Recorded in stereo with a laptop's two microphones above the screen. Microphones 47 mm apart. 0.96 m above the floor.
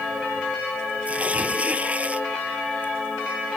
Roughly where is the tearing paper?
Right.